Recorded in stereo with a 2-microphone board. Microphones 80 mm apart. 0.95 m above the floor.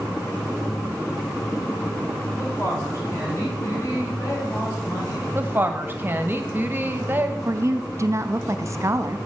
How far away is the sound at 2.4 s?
About 4 m.